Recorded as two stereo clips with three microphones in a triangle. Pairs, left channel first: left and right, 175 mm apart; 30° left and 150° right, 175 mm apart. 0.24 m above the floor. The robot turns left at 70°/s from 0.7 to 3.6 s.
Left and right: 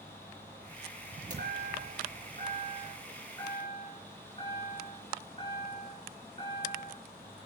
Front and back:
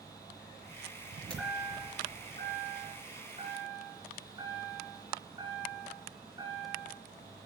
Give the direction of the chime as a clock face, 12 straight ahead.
2 o'clock.